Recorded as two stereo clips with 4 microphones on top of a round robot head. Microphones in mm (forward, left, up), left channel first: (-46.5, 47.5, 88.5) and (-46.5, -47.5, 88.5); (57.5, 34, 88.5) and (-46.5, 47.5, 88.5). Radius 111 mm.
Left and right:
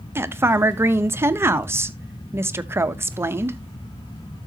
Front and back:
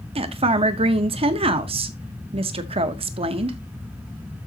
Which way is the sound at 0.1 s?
155° right.